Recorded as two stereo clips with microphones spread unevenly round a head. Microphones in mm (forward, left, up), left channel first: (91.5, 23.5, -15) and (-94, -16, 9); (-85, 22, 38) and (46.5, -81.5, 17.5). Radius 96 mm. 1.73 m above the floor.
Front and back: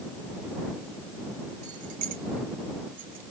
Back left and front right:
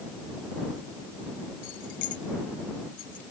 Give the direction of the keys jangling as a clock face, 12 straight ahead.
7 o'clock.